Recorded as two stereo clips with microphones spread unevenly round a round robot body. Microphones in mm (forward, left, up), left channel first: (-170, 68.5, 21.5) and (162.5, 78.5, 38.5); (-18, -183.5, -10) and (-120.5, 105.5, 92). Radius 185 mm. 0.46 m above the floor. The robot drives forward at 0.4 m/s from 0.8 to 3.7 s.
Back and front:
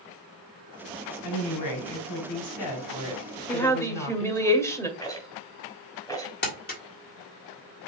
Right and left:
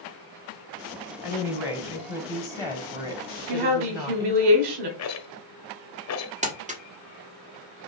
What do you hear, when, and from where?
1.2 s a woman speaking: 155° right, 2 m; by 4.5 s 165° right, 3 m
3.5 s a woman speaking: 95° left, 1.6 m; by 4.9 s 100° left, 1.6 m
5.0 s a rattle: 100° right, 1.1 m
6.4 s crumpling: 170° right, 1.5 m